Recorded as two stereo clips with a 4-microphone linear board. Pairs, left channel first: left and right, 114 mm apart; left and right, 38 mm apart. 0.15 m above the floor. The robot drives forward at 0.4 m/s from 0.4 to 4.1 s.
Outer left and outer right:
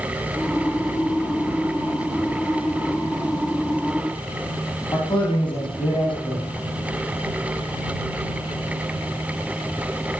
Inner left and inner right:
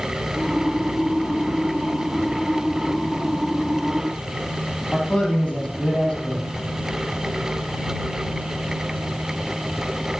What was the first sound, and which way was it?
A man speaking, 45° left (ahead or behind).